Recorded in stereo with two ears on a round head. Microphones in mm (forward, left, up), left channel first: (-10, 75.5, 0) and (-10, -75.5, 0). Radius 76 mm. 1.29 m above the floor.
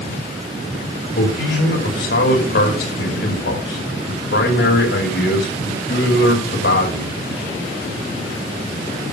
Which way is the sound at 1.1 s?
60° left (ahead or behind).